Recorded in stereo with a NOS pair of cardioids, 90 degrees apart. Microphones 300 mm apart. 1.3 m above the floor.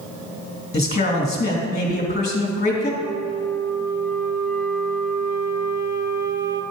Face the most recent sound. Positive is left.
turn(degrees=-40)